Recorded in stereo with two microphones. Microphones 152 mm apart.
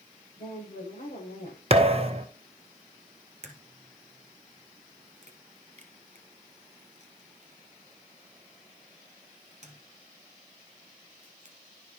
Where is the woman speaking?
65° left (ahead or behind), 7.5 m.